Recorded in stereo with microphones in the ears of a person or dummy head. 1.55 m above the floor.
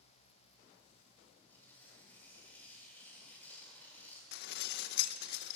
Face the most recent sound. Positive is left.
turn(degrees=60)  # may be behind; listen again after turning